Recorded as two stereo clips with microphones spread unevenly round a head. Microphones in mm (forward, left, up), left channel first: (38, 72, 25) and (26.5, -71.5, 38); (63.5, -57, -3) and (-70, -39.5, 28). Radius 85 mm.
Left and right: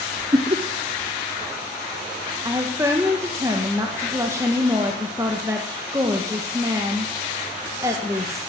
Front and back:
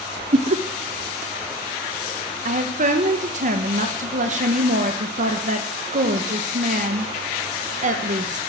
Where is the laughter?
155° right, 1.0 m.